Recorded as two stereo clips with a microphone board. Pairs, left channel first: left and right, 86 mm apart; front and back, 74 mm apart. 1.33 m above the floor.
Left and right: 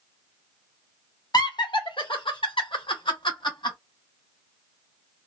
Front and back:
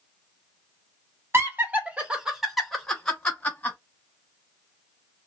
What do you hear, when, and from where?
1.3 s laughter: 125° left, 1.1 m; by 3.8 s 70° left, 1.5 m